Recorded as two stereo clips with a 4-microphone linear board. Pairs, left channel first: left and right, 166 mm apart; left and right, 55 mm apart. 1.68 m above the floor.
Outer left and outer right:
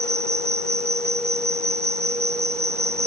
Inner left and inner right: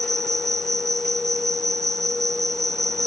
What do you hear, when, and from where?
0.0 s an insect: 75° right (ahead or behind)